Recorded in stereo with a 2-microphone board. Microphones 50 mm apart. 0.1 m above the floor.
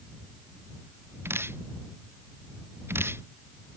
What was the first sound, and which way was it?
Dripping, 50° right (ahead or behind).